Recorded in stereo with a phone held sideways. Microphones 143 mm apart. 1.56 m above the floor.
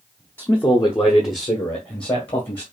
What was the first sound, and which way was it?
A man speaking, 15° left (ahead or behind).